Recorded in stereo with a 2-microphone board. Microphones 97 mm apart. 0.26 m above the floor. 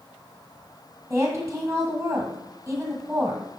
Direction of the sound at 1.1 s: 25° right (ahead or behind).